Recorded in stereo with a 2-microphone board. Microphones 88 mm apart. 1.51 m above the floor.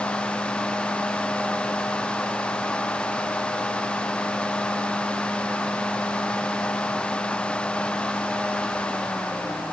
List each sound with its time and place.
Only background noise.